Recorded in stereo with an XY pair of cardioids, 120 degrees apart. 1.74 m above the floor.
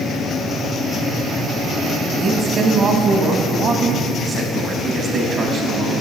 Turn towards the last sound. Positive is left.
turn(degrees=-50)